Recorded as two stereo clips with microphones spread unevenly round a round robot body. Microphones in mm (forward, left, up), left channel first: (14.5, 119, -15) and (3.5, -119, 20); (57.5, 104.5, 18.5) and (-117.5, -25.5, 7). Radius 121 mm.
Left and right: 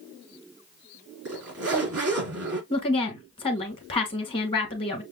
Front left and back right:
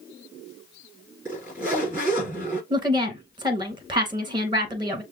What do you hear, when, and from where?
1.2 s a zipper: 65° right, 3.5 m
2.7 s a woman speaking: 150° left, 1.1 m